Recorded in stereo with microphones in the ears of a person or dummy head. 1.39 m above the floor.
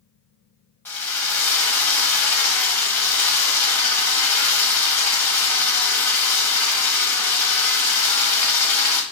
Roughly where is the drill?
Centre.